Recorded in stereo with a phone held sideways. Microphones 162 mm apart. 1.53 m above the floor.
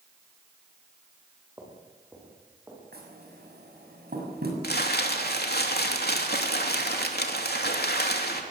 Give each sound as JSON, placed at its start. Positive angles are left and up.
{"t": 1.6, "sound": "footsteps", "side_deg": -15, "distance_m": 9.0}
{"t": 2.9, "sound": "knocking", "side_deg": -85, "distance_m": 7.0}
{"t": 4.6, "sound": "crumpling", "side_deg": 80, "distance_m": 3.0}